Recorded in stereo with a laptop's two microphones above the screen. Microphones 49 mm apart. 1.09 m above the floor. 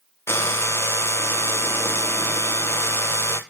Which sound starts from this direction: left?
A drill, at 0.3 s.